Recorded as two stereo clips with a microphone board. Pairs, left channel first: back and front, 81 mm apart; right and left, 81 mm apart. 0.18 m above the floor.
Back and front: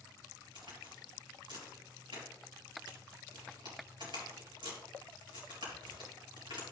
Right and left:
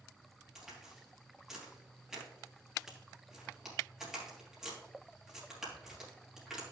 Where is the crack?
5° left, 4 m.